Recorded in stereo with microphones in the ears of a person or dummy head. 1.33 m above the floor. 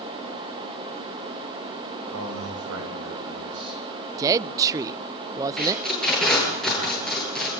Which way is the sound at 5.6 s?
Centre (ahead or behind).